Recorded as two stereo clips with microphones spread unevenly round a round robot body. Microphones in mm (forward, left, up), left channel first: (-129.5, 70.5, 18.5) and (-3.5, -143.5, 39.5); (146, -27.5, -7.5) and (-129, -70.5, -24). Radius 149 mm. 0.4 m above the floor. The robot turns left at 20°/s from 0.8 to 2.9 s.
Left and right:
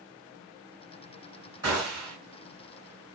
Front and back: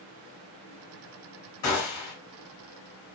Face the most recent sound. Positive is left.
turn(degrees=-10)